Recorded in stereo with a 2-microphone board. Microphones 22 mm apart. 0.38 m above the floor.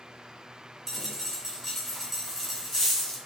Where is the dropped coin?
Centre (ahead or behind), 2 m.